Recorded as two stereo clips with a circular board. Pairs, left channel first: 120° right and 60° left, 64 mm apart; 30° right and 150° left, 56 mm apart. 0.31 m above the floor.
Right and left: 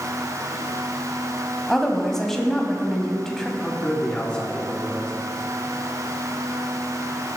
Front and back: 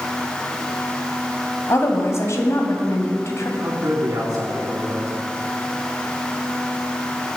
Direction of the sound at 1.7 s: 40° right.